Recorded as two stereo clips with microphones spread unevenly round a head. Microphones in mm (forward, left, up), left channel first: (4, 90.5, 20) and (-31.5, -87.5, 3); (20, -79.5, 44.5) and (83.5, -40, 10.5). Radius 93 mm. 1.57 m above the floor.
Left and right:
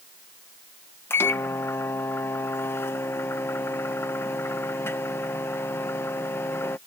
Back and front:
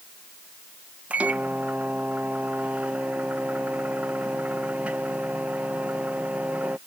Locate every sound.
1.1 s a microwave: 140° left